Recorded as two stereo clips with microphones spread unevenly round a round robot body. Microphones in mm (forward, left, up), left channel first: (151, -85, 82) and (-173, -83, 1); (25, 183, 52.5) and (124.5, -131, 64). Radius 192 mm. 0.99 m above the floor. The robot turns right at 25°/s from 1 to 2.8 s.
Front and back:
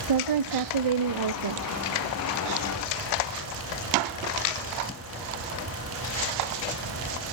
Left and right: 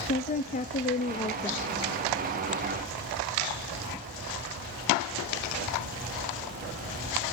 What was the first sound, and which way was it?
A woman speaking, 175° left.